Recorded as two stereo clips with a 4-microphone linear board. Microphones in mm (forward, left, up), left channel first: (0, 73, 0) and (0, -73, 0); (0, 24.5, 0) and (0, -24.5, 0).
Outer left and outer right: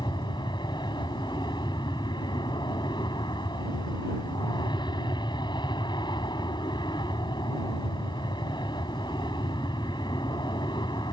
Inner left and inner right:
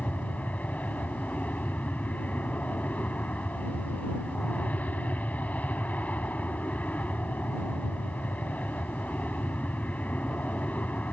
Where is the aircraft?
30° left (ahead or behind).